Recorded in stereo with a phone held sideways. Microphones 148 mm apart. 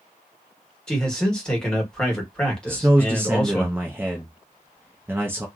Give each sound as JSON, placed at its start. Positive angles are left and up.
{"t": 0.9, "sound": "a man speaking", "side_deg": 5, "distance_m": 1.4}
{"t": 2.7, "sound": "a man speaking", "side_deg": -15, "distance_m": 0.6}